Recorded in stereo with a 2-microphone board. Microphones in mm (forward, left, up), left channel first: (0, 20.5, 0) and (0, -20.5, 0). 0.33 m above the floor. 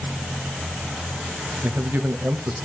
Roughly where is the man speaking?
Right.